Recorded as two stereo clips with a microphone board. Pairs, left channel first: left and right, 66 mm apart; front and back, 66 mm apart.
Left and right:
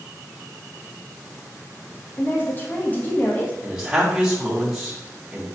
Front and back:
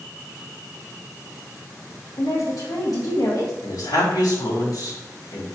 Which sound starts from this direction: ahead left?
A woman speaking, at 2.2 s.